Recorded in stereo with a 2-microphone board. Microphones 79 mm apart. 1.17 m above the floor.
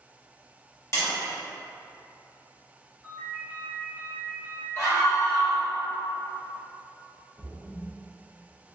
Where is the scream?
45° left (ahead or behind), 1.5 m.